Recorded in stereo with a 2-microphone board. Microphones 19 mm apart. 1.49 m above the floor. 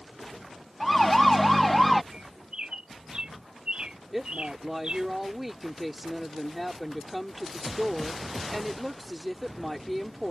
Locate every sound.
0.8 s a siren: 5° left (ahead or behind)
2.1 s a bird: 65° right (ahead or behind)
4.1 s a woman speaking: 10° right (ahead or behind)